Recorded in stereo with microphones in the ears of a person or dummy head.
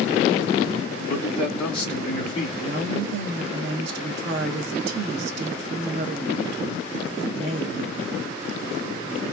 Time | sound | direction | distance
1.1 | a man speaking | 20° left (ahead or behind) | 2 m
2.6 | a woman speaking | 70° right (ahead or behind) | 1.2 m